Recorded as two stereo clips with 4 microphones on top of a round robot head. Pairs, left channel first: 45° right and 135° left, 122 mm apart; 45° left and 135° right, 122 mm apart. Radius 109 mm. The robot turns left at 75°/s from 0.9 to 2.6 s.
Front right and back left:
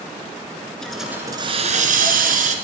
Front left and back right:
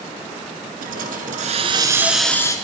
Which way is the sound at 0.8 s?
130° right.